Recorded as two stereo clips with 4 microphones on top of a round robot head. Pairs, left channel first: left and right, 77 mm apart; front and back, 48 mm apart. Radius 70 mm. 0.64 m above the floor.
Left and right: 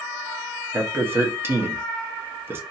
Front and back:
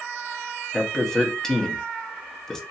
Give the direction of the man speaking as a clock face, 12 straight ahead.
2 o'clock.